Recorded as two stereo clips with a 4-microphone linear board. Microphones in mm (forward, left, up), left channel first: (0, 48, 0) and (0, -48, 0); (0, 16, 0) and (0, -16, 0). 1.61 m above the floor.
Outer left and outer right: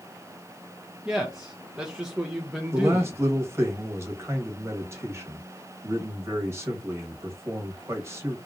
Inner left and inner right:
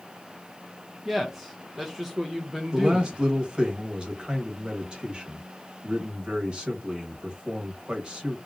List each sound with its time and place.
1.1 s a man speaking: 5° right (ahead or behind), 0.5 m
2.7 s a man speaking: 30° right (ahead or behind), 1.1 m